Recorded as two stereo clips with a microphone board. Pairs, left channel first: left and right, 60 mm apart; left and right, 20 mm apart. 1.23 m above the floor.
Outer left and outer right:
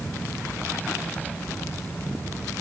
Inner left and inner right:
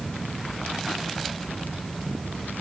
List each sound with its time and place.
Only background noise.